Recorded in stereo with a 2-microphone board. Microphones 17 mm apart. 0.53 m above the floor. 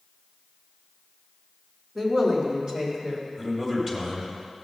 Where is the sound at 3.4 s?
15° right (ahead or behind), 2.5 m.